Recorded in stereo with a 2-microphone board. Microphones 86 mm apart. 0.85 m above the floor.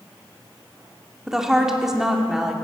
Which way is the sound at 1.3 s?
5° right (ahead or behind).